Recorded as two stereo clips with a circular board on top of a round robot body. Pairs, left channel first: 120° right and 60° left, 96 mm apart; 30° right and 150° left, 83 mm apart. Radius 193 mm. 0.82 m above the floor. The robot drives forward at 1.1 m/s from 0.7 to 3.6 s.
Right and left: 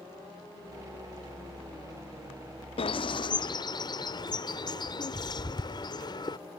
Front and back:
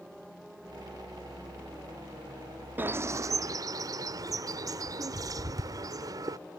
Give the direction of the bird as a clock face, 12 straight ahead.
5 o'clock.